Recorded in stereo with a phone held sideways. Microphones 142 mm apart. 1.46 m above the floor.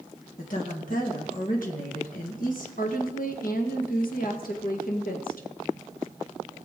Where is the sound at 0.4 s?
70° left (ahead or behind), 1.8 m.